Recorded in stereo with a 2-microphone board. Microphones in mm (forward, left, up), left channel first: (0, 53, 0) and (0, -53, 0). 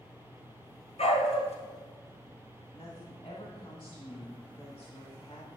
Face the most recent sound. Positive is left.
turn(degrees=50)  # may be behind; listen again after turning